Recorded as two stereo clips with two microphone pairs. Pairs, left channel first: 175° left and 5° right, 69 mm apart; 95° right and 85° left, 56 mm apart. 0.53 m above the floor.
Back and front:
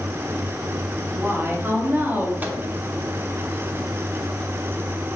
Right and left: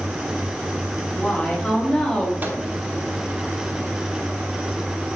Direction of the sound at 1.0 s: 30° right.